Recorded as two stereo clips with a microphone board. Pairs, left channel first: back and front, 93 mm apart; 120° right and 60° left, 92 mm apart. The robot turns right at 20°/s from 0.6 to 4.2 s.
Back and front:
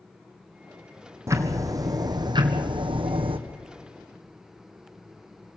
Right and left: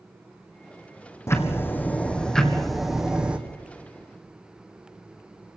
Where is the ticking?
60° right, 1.9 m; by 3.4 s 20° right, 1.9 m.